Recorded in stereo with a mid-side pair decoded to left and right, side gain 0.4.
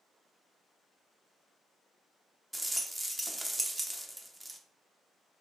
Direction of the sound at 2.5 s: 20° right.